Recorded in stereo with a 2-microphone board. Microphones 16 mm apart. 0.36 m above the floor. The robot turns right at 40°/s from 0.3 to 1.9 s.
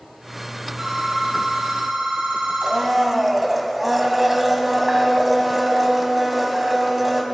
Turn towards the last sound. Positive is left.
turn(degrees=-15)  # may be behind; listen again after turning